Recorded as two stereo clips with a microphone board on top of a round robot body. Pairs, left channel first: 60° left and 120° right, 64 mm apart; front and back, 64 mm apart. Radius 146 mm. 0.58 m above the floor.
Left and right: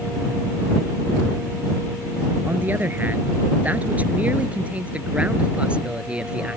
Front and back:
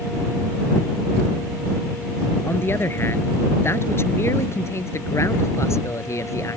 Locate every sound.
2.5 s a man speaking: 55° right; by 6.6 s 45° right